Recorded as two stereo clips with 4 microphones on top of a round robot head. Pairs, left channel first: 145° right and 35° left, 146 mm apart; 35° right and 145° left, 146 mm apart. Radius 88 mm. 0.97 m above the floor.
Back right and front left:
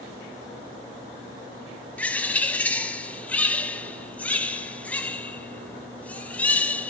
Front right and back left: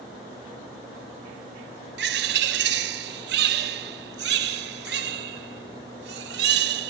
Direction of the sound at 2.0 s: 135° left.